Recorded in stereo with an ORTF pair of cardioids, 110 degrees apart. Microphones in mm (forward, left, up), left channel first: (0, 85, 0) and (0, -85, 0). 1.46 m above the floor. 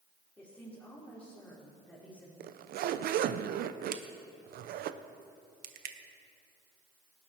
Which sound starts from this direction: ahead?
A woman speaking, at 0.4 s.